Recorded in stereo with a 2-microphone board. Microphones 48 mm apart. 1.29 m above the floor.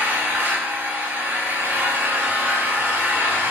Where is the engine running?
55° right (ahead or behind), 5 m.